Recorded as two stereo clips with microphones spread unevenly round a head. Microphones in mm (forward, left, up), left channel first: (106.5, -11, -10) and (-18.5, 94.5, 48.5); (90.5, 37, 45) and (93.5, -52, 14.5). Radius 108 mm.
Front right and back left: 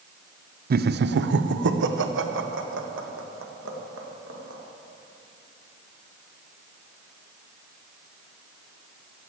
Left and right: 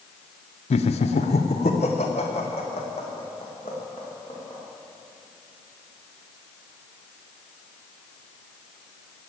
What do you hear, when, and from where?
0.7 s laughter: 100° left, 0.6 m; by 4.6 s 155° left, 2.5 m